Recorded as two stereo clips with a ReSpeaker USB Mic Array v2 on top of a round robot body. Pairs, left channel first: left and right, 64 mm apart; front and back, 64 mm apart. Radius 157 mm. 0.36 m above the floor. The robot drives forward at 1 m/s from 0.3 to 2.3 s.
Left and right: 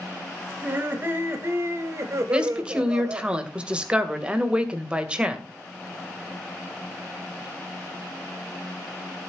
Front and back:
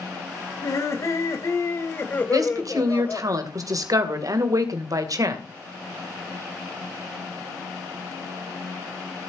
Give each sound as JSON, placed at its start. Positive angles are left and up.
{"t": 0.6, "sound": "laughter", "azimuth_deg": -30, "distance_m": 3.0}
{"t": 2.3, "sound": "a woman speaking", "azimuth_deg": -165, "distance_m": 2.0}